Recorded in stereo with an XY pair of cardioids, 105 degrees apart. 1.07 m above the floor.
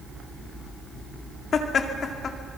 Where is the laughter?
55° left, 2.5 m.